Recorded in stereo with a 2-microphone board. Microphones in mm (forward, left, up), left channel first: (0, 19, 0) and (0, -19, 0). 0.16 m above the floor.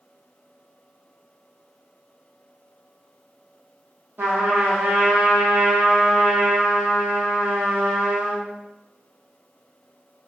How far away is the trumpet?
About 1.5 m.